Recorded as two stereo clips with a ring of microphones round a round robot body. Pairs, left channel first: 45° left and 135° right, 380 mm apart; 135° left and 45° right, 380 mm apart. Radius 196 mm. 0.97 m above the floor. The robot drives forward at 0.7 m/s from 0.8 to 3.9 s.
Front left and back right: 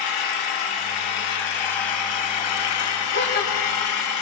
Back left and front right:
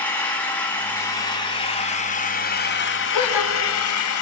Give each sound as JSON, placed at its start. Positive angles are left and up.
{"t": 0.0, "sound": "an engine running", "azimuth_deg": 50, "distance_m": 3.5}
{"t": 3.1, "sound": "a gasp", "azimuth_deg": 105, "distance_m": 3.0}